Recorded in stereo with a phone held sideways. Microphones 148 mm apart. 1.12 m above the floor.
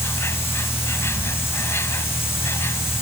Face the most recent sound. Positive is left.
turn(degrees=15)  # may be behind; listen again after turning